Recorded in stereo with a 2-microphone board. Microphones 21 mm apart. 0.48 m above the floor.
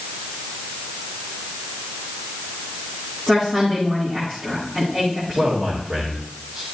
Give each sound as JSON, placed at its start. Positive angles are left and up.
{"t": 3.3, "sound": "a woman speaking", "side_deg": -55, "distance_m": 5.0}
{"t": 5.3, "sound": "a man speaking", "side_deg": -60, "distance_m": 2.0}